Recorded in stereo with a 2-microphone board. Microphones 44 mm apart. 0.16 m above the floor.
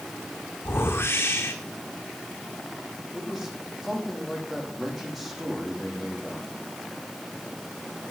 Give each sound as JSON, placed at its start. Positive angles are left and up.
{"t": 0.7, "sound": "a whoosh", "side_deg": 60, "distance_m": 1.8}
{"t": 3.1, "sound": "a man speaking", "side_deg": -5, "distance_m": 7.0}